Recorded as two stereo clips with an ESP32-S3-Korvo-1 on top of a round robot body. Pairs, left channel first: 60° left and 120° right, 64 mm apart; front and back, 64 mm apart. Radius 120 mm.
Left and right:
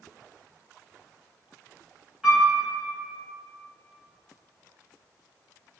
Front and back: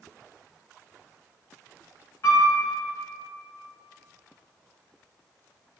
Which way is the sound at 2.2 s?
40° right.